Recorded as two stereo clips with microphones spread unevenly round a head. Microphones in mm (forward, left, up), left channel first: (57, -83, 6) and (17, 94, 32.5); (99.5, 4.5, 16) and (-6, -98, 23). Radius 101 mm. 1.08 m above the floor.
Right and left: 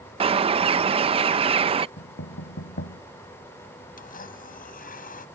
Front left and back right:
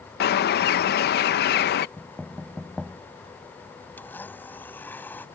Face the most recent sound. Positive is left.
turn(degrees=-35)